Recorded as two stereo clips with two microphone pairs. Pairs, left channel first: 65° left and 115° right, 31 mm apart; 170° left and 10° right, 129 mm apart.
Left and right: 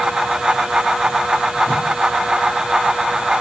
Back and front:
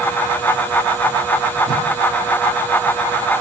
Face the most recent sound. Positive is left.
turn(degrees=130)